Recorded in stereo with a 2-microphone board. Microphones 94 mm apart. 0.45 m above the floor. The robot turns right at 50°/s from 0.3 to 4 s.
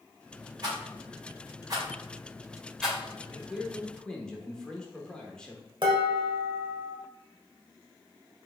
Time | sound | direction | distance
0.6 | a rattle | 45° right (ahead or behind) | 2 m
3.3 | a man speaking | 20° right | 0.9 m
5.8 | dishes clattering | 60° right (ahead or behind) | 1.2 m